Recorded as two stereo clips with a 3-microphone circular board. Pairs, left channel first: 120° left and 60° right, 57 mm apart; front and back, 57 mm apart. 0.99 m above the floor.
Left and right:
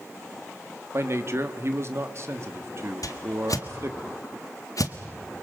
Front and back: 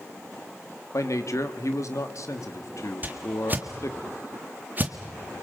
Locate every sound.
0.9 s a man speaking: 25° right, 1.9 m
3.0 s a whoosh: 125° left, 1.6 m